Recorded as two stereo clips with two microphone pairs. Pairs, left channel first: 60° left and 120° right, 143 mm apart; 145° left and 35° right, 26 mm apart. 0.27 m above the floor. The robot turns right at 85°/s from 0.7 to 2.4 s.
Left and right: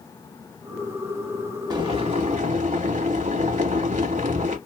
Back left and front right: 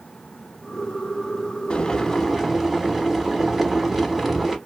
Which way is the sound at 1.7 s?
175° right.